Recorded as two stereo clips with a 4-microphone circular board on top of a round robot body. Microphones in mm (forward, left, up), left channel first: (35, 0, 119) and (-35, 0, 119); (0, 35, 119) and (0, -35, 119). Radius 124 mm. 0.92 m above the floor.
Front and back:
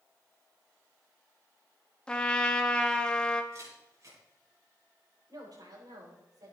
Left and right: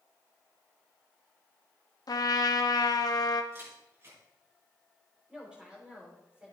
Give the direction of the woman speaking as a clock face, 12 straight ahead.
6 o'clock.